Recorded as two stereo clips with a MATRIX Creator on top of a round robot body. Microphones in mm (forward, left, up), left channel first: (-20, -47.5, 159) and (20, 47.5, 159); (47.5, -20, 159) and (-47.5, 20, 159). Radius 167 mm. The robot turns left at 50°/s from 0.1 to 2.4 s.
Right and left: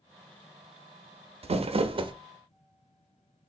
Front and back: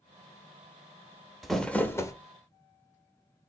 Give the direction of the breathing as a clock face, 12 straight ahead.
I don't hear breathing.